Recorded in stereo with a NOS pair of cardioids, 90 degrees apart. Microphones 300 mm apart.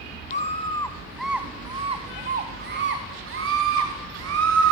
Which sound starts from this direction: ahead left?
A scream, at 0.3 s.